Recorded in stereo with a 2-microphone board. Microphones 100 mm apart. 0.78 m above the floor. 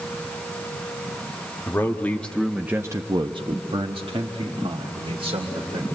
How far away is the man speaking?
About 1.2 m.